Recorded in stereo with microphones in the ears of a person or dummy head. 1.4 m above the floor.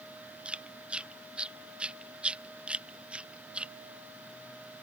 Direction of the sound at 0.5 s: 10° right (ahead or behind).